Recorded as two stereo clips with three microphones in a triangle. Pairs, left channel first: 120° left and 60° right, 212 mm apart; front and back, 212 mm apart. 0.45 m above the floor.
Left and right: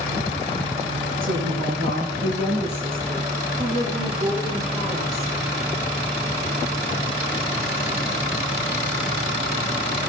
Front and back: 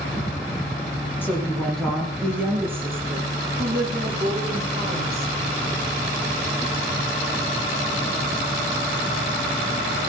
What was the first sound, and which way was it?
A woman speaking, 80° right.